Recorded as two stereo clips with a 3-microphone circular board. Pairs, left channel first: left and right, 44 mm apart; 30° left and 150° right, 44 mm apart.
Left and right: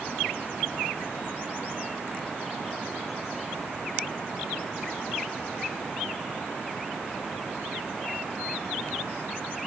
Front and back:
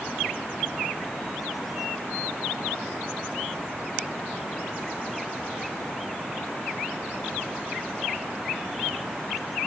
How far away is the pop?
No pop in this recording.